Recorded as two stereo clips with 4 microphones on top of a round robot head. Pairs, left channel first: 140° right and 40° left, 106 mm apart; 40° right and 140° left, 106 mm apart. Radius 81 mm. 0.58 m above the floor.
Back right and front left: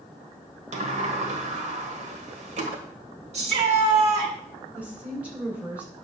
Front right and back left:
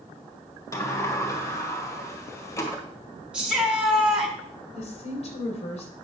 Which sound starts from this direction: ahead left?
A shout, at 3.3 s.